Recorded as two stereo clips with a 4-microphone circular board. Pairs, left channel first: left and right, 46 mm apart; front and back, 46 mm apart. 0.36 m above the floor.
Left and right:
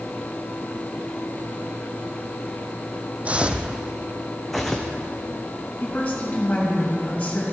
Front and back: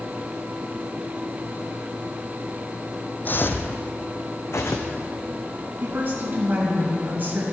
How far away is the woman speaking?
About 2.5 m.